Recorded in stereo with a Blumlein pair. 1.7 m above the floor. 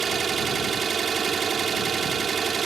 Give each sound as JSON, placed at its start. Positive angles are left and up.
{"t": 0.0, "sound": "an engine running", "azimuth_deg": -20}